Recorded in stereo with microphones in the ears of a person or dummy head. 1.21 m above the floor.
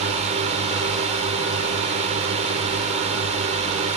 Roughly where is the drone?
Right.